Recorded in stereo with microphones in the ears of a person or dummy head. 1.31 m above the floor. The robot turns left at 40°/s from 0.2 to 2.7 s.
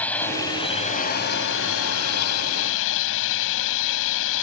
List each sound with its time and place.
0.0 s a drone: 170° left; by 4.4 s 70° left